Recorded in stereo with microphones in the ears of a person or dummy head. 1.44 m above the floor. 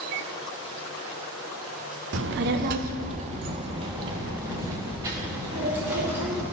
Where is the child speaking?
50° right (ahead or behind), 0.5 m; by 6.4 s 10° right (ahead or behind), 2 m.